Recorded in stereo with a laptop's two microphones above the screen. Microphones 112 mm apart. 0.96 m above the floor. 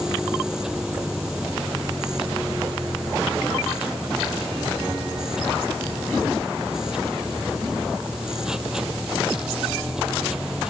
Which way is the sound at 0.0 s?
5° right (ahead or behind).